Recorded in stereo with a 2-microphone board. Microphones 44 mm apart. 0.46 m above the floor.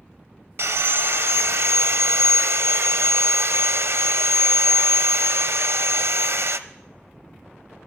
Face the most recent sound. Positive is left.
turn(degrees=-70)  # may be behind; listen again after turning